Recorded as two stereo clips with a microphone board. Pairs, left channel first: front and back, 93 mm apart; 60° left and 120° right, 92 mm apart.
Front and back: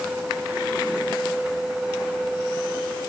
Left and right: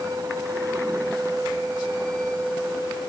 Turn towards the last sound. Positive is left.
No sound to turn to.